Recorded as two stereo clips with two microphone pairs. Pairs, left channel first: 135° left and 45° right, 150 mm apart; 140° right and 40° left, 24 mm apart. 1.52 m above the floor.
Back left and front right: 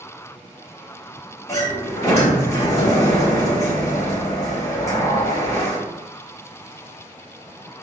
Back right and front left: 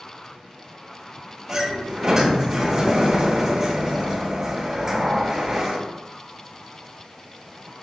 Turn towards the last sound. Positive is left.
turn(degrees=90)